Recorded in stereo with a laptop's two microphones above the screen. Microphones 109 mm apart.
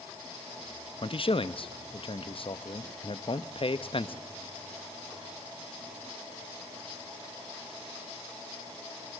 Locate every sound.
1.0 s a man speaking: 55° left (ahead or behind), 0.7 m